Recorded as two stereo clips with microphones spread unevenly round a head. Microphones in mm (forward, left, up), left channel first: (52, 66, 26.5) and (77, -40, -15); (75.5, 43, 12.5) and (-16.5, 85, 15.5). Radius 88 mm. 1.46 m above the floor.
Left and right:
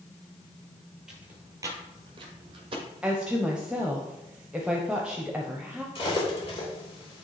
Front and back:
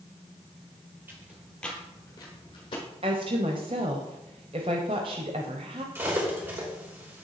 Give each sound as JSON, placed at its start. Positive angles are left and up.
{"t": 1.1, "sound": "footsteps", "azimuth_deg": 155, "distance_m": 1.5}
{"t": 3.0, "sound": "a woman speaking", "azimuth_deg": -155, "distance_m": 0.6}
{"t": 6.0, "sound": "cutlery clinking", "azimuth_deg": 90, "distance_m": 3.0}